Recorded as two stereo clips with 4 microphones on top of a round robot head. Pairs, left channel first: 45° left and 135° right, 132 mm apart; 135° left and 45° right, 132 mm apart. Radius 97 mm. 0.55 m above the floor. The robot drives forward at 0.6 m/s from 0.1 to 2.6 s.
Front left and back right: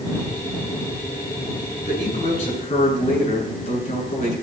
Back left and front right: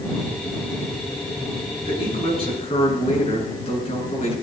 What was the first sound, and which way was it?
A man speaking, 85° left.